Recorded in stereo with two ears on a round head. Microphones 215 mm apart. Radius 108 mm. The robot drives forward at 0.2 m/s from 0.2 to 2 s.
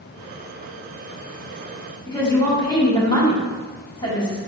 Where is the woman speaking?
20° left (ahead or behind), 1.3 m.